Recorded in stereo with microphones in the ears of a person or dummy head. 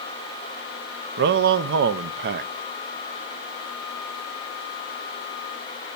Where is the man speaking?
55° right (ahead or behind), 0.7 m.